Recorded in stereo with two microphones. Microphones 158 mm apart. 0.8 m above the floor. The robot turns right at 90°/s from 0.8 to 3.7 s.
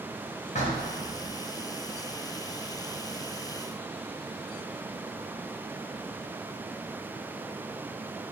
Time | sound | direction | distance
0.6 | knocking | 50° left | 0.8 m